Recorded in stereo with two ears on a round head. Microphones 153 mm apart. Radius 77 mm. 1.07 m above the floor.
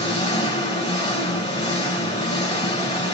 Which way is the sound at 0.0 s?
25° left (ahead or behind).